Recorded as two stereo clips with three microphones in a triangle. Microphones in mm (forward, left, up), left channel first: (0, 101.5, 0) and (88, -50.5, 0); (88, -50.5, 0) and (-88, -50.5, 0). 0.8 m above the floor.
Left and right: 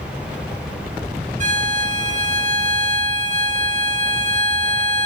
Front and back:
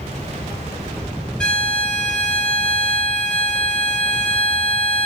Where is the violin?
85° right, 0.6 m.